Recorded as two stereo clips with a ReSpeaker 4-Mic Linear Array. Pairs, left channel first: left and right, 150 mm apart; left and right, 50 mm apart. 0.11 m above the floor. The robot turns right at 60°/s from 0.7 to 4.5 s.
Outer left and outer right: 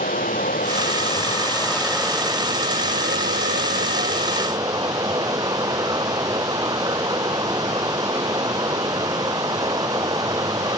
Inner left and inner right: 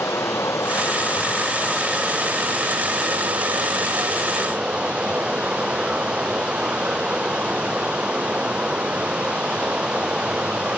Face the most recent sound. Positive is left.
turn(degrees=-25)